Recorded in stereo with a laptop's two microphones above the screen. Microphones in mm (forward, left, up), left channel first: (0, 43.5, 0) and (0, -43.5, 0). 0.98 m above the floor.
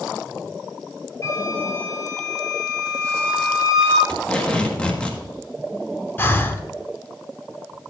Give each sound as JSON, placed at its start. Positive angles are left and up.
{"t": 1.2, "sound": "a flute", "side_deg": 35, "distance_m": 4.0}
{"t": 4.1, "sound": "tape being pulled", "side_deg": 10, "distance_m": 1.6}
{"t": 6.2, "sound": "breathing", "side_deg": 25, "distance_m": 0.9}